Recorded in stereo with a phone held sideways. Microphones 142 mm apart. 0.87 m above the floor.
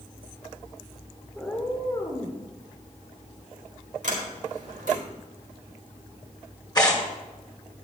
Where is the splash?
No splash in this recording.